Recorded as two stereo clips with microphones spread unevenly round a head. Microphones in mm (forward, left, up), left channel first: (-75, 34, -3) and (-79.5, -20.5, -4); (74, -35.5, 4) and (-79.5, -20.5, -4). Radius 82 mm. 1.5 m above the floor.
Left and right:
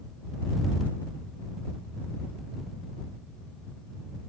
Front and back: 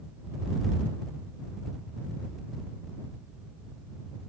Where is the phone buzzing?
I don't hear a phone buzzing.